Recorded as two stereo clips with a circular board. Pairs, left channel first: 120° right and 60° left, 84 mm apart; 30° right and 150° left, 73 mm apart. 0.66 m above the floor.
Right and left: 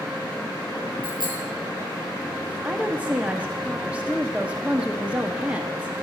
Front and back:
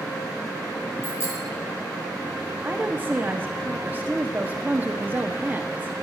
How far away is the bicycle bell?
About 8 m.